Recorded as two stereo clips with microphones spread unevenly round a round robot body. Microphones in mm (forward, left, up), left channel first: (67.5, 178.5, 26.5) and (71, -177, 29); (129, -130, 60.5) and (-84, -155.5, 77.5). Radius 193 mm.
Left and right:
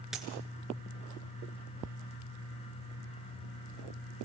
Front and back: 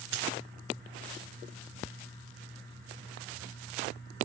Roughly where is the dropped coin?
Behind.